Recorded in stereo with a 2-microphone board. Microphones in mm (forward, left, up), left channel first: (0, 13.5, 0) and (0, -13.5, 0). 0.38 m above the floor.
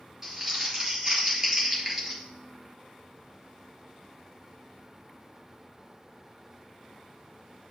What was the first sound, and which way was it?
Crumpling, 25° right (ahead or behind).